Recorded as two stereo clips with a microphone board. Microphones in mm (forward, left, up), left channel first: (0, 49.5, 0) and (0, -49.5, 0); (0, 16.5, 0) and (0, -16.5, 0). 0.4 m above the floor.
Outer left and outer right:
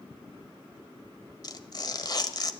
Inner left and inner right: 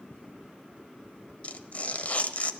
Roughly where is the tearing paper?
Left.